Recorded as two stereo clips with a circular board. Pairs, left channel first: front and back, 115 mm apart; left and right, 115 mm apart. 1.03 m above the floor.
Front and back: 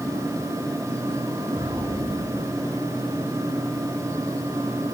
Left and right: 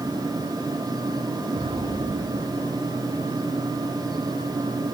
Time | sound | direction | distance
1.5 | an explosion | 110° right | 7.5 m